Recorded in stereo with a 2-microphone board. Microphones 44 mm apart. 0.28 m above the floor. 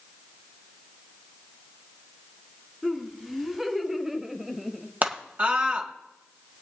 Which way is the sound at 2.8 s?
5° right (ahead or behind).